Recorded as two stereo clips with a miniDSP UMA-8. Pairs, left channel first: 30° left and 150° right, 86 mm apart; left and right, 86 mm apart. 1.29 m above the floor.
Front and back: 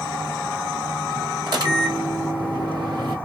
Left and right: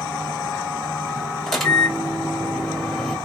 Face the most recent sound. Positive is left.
turn(degrees=175)